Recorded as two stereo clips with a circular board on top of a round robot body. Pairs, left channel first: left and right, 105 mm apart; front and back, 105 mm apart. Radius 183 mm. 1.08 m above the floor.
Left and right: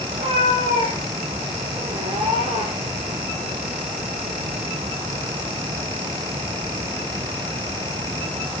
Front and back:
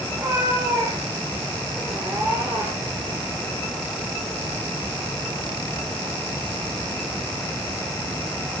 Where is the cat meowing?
115° right, 7 m.